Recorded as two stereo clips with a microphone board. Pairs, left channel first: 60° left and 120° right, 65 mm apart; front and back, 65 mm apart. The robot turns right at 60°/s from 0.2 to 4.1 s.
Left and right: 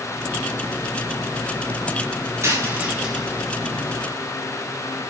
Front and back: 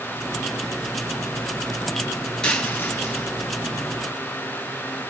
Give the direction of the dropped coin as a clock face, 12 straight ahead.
3 o'clock.